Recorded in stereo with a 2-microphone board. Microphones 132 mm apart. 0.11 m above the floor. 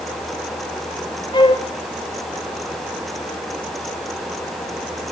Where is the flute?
35° left (ahead or behind), 0.6 m.